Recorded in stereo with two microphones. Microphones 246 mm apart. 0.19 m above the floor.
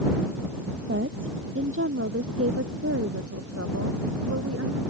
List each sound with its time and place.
0.9 s a woman speaking: 50° right (ahead or behind); by 4.8 s 75° right (ahead or behind)